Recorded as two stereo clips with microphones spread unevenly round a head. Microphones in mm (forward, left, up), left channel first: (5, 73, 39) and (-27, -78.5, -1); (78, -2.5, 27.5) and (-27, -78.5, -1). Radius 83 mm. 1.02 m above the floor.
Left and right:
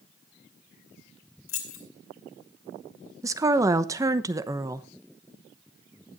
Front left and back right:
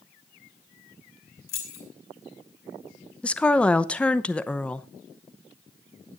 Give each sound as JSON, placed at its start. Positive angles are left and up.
{"t": 1.5, "sound": "keys jangling", "azimuth_deg": 75, "distance_m": 3.0}
{"t": 3.2, "sound": "a woman speaking", "azimuth_deg": -55, "distance_m": 0.9}